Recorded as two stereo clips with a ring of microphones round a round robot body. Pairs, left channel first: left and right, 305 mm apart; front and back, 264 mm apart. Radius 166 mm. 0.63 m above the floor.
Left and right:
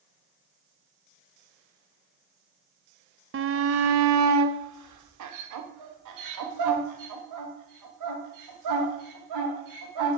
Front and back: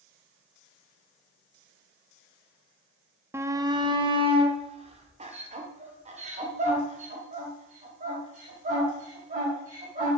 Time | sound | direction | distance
3.3 | a shout | 105° right | 0.6 m